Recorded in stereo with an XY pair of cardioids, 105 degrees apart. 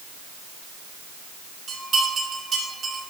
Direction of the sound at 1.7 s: 55° right.